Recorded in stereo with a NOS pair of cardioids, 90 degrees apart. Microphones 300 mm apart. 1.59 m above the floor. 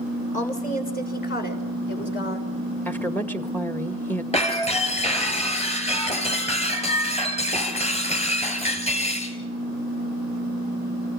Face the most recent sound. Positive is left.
turn(degrees=20)